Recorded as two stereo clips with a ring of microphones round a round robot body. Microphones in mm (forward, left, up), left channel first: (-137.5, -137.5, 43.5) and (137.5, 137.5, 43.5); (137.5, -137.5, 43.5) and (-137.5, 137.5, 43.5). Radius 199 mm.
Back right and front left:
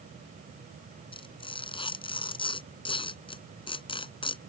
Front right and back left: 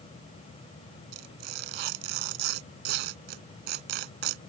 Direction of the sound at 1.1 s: 150° left.